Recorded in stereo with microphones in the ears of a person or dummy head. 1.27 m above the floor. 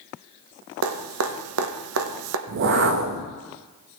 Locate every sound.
0.8 s dripping: 80° right, 1.2 m
2.5 s a whoosh: 50° right (ahead or behind), 0.6 m